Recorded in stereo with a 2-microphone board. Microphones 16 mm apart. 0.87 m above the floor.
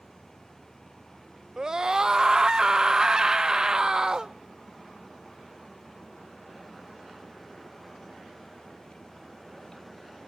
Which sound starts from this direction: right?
A scream, at 1.6 s.